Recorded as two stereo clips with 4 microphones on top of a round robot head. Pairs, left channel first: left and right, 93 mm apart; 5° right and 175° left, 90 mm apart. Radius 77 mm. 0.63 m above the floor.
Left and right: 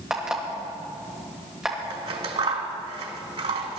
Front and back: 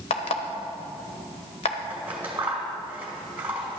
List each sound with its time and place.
0.1 s an alarm clock: 5° right, 1.2 m
1.9 s scissors: 110° right, 1.4 m